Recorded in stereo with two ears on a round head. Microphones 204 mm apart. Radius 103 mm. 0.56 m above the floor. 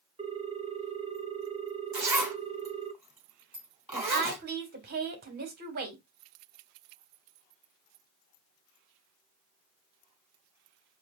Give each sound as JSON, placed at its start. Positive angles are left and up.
{"t": 0.2, "sound": "a ringtone", "side_deg": -25, "distance_m": 0.8}
{"t": 1.9, "sound": "a zipper", "side_deg": -10, "distance_m": 2.5}
{"t": 3.9, "sound": "a woman speaking", "side_deg": -45, "distance_m": 1.8}